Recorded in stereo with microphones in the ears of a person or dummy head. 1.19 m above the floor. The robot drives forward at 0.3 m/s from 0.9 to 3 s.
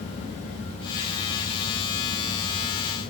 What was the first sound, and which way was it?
Only background noise.